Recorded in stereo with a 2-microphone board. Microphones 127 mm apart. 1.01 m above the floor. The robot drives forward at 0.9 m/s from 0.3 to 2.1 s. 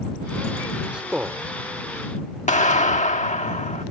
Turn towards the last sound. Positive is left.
turn(degrees=70)  # may be behind; listen again after turning